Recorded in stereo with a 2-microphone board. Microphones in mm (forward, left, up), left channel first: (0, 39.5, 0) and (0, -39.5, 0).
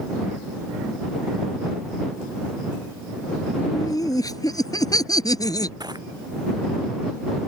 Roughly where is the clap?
I don't hear a clap.